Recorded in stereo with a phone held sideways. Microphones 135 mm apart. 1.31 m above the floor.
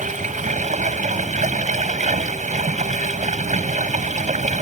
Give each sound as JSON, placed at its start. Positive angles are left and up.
{"t": 0.0, "sound": "running water", "side_deg": -70}